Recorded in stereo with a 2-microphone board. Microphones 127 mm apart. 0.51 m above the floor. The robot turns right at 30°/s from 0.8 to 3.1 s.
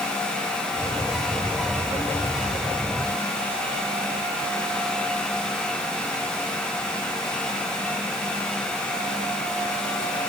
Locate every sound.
Only background noise.